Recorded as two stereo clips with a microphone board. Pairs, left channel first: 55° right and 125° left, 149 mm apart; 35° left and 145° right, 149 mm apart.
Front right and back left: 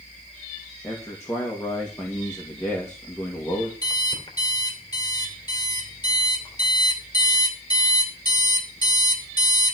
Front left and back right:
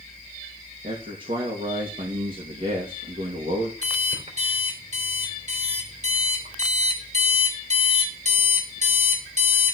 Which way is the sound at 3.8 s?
115° right.